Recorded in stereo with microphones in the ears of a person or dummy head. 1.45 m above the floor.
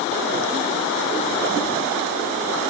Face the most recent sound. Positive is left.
No sound to turn to.